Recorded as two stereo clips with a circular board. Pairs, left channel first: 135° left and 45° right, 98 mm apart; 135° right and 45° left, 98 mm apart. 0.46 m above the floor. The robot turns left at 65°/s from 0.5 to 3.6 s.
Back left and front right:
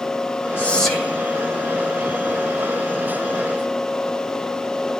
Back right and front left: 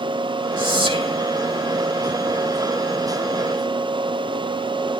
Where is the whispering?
70° left, 3.5 m; by 1.2 s 30° left, 3.5 m.